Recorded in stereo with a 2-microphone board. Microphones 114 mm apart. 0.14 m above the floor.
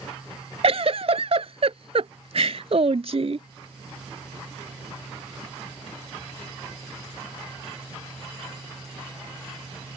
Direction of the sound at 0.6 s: 60° right (ahead or behind).